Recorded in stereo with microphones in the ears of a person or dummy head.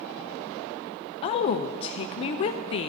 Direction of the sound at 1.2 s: 35° left (ahead or behind).